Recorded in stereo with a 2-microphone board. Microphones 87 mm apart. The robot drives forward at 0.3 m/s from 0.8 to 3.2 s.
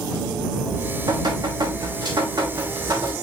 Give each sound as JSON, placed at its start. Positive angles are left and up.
{"t": 0.6, "sound": "dripping", "side_deg": -55, "distance_m": 3.5}